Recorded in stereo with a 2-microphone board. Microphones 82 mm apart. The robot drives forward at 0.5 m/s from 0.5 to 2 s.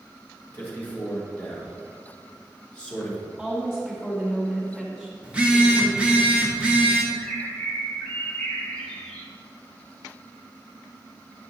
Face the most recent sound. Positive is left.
turn(degrees=20)  # may be behind; listen again after turning